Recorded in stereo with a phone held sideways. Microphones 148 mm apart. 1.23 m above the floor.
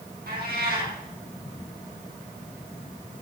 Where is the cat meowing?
80° right, 4.5 m.